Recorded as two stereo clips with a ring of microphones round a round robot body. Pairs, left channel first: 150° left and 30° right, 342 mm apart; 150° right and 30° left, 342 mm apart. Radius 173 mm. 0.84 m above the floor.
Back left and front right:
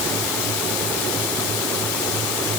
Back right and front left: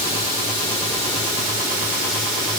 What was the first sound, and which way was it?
Only background noise.